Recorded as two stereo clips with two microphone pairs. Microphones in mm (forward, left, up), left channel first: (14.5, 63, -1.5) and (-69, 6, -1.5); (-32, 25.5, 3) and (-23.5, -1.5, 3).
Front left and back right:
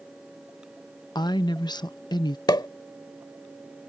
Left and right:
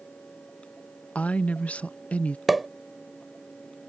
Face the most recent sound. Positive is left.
turn(degrees=10)